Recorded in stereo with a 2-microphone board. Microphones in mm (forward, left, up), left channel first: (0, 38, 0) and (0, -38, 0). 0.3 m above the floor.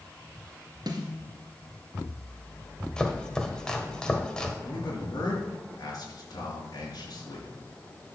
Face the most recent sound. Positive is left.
turn(degrees=55)  # may be behind; listen again after turning